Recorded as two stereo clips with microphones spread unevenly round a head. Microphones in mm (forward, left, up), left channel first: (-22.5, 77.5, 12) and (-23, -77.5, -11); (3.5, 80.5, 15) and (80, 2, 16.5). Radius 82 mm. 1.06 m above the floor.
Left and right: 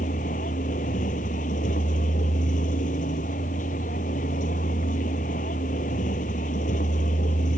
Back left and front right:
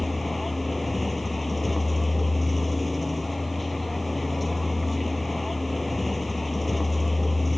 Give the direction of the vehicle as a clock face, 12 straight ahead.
11 o'clock.